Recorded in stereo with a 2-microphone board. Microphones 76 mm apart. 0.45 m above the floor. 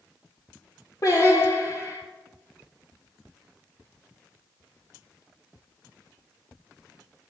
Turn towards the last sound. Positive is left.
turn(degrees=55)  # may be behind; listen again after turning